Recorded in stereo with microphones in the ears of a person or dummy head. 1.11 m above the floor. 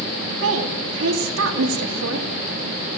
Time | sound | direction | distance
0.4 | a woman speaking | 70° right (ahead or behind) | 2.5 m